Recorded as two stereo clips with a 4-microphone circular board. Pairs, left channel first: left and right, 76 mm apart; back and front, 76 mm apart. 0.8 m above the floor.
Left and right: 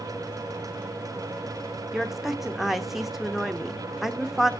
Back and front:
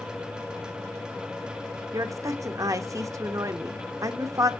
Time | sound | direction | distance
1.9 | a woman speaking | 5° right | 0.7 m